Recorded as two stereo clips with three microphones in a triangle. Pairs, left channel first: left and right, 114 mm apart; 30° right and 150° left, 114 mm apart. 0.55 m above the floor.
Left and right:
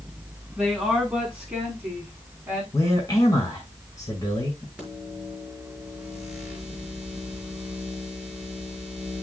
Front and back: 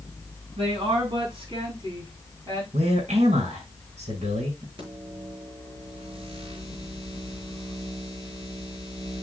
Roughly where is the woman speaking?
Behind.